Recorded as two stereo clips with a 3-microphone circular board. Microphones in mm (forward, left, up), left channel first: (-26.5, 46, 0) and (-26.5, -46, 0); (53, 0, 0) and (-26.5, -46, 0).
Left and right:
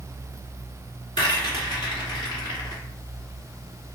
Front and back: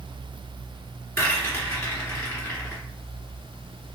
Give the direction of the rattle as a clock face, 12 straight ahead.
9 o'clock.